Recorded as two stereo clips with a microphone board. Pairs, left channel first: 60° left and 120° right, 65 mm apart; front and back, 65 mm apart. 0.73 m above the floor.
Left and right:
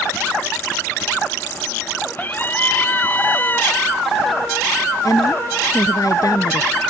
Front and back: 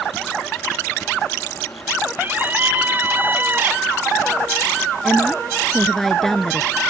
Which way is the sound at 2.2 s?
120° left.